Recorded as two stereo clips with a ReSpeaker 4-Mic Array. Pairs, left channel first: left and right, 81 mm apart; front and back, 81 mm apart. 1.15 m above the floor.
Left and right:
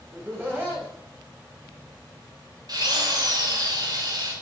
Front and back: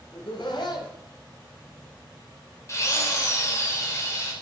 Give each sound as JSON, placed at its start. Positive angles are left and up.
{"t": 0.1, "sound": "laughter", "azimuth_deg": -25, "distance_m": 8.5}
{"t": 2.7, "sound": "a drill", "azimuth_deg": -55, "distance_m": 4.0}